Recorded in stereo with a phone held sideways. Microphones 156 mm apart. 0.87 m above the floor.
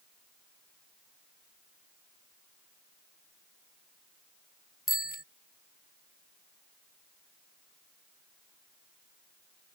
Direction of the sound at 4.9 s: 70° left (ahead or behind).